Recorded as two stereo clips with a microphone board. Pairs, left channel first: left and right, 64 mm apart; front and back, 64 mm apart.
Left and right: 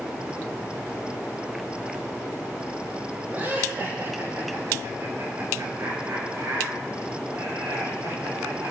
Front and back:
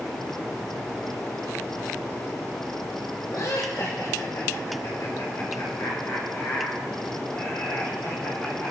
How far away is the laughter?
About 5 m.